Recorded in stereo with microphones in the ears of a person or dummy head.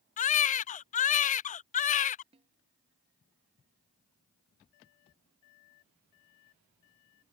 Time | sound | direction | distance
0.2 | a baby crying | 35° left (ahead or behind) | ?
2.3 | a snare drum | 30° right (ahead or behind) | ?